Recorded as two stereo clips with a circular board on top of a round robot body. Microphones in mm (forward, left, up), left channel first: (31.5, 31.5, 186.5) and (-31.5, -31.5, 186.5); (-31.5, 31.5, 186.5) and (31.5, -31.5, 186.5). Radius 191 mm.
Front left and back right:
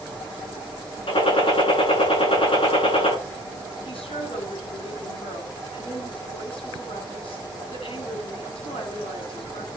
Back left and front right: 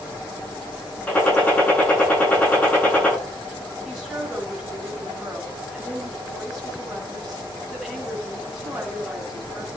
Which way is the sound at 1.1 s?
60° left.